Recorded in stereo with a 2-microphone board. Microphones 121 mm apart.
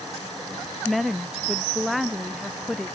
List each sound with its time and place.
0.8 s a woman speaking: centre (ahead or behind)